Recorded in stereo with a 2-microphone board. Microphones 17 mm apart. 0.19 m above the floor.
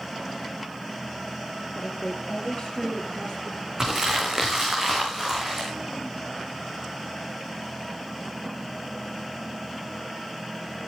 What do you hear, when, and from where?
1.8 s a woman speaking: 70° left (ahead or behind), 4.5 m; by 3.7 s 35° left (ahead or behind), 3.5 m
3.8 s crumpling: 25° right (ahead or behind), 6.5 m